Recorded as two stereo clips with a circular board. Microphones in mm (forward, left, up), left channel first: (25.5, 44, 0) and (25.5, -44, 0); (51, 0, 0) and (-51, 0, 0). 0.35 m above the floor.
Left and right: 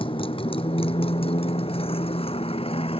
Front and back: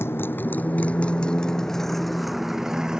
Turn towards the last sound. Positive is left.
turn(degrees=95)